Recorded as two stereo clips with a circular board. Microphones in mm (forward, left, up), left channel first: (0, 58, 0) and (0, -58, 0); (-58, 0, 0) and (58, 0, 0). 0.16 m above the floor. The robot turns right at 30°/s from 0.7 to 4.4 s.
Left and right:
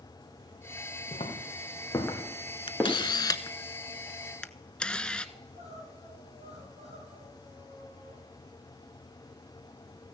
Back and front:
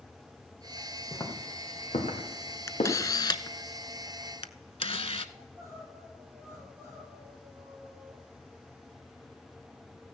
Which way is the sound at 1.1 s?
115° left.